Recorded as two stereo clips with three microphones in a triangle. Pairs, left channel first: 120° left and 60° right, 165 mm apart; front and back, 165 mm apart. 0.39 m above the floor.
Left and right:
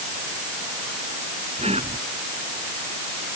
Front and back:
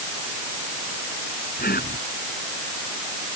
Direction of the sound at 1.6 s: 10° right.